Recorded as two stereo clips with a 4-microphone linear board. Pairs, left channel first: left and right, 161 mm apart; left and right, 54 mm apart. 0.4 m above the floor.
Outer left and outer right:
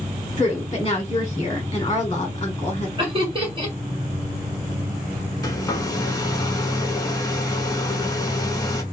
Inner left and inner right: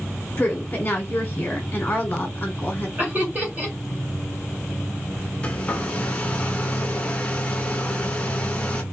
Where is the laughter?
35° right (ahead or behind), 1.6 m.